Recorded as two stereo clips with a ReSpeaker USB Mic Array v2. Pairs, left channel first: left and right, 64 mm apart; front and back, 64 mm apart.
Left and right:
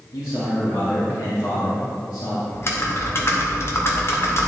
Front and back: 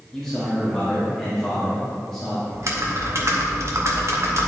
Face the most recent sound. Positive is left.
turn(degrees=135)